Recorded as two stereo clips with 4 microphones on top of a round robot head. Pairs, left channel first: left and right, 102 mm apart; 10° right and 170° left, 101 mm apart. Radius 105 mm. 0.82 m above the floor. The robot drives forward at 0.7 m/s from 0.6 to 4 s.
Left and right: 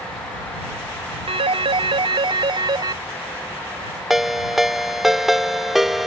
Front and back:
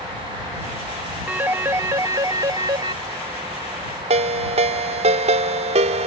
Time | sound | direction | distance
1.3 | a phone ringing | 110° right | ?
4.1 | a ringtone | 175° right | ?